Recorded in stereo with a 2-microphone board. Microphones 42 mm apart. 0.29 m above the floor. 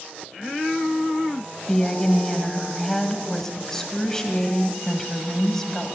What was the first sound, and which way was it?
A woman speaking, 10° left (ahead or behind).